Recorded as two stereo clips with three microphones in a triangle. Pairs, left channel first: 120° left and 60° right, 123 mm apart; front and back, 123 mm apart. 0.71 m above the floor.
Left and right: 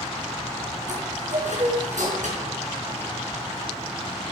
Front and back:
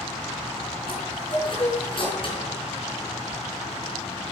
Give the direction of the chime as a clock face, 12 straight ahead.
2 o'clock.